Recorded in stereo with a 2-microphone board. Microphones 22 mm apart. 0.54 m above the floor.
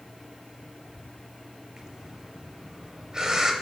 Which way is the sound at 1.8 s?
20° right (ahead or behind).